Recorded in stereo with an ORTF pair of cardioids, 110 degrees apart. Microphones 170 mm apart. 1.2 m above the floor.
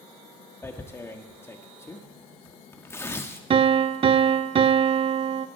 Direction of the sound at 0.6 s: 15° left.